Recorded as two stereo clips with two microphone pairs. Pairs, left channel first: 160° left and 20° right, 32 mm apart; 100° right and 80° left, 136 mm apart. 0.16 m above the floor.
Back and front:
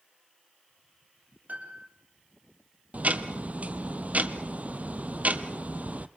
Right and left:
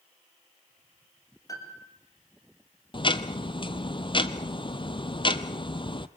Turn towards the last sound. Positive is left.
turn(degrees=-50)